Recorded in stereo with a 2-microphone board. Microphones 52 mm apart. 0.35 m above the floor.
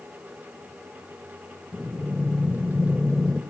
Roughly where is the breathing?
Centre.